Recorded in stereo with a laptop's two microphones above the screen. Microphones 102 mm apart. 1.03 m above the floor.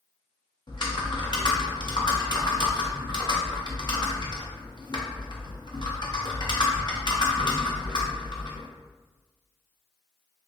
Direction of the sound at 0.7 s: 45° left (ahead or behind).